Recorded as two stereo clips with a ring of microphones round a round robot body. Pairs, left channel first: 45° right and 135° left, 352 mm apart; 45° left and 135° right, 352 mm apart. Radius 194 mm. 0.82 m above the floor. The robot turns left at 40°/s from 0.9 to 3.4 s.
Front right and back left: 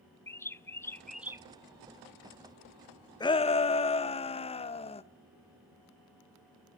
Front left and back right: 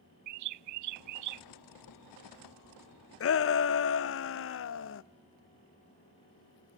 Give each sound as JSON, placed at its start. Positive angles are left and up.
{"t": 0.3, "sound": "a bird", "azimuth_deg": -125, "distance_m": 0.5}
{"t": 3.2, "sound": "a shout", "azimuth_deg": 30, "distance_m": 0.6}